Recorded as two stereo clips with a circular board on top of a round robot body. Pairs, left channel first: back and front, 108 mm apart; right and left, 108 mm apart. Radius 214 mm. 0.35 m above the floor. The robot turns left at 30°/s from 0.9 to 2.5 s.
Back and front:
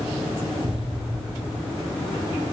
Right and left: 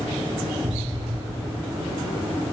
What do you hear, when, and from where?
0.6 s an explosion: 30° left, 1.4 m; by 1.6 s 10° left, 1.4 m